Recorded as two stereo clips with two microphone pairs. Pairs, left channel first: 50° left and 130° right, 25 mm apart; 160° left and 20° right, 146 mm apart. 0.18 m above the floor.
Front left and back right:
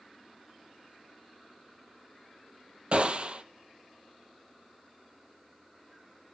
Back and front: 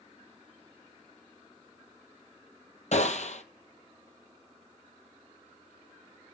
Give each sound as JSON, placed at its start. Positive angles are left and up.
{"t": 2.9, "sound": "a gunshot", "azimuth_deg": -170, "distance_m": 1.2}